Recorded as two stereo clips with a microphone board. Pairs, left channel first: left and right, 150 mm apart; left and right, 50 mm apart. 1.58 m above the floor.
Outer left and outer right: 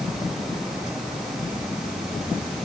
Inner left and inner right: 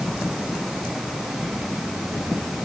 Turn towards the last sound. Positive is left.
No sound to turn to.